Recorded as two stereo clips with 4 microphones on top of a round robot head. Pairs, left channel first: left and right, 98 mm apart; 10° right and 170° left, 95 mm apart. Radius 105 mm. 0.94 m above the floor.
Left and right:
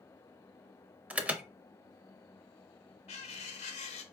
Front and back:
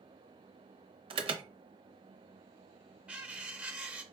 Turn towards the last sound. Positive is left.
turn(degrees=95)